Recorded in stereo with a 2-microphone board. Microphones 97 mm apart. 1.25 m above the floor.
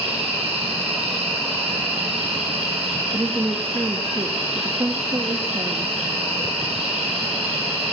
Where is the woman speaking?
40° right (ahead or behind), 1.6 m.